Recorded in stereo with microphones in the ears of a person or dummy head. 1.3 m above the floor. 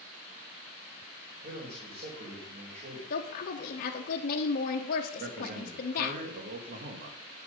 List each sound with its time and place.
1.4 s a man speaking: 40° right (ahead or behind), 4 m
3.1 s a woman speaking: 45° left (ahead or behind), 1.1 m
5.2 s a man speaking: 60° right (ahead or behind), 1.7 m